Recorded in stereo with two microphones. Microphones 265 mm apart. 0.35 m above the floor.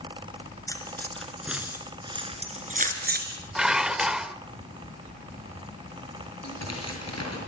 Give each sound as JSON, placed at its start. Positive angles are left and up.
{"t": 0.7, "sound": "keys jangling", "side_deg": 15, "distance_m": 3.5}
{"t": 3.5, "sound": "dishes clattering", "side_deg": -5, "distance_m": 0.7}
{"t": 6.4, "sound": "tearing paper", "side_deg": 75, "distance_m": 6.5}